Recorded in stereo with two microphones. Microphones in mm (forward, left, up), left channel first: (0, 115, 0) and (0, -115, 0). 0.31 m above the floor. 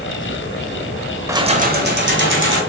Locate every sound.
1.3 s keys jangling: 10° right (ahead or behind), 0.7 m; by 2.6 s 55° right (ahead or behind), 1.9 m